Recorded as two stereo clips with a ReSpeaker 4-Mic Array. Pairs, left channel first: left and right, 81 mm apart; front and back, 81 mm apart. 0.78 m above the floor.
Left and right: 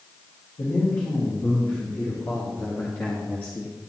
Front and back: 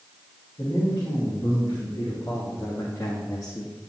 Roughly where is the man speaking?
Ahead left.